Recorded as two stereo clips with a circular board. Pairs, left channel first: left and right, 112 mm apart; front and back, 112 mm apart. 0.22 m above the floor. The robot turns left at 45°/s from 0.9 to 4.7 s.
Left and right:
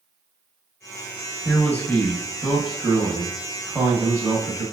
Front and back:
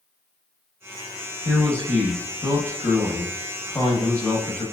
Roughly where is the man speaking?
Left.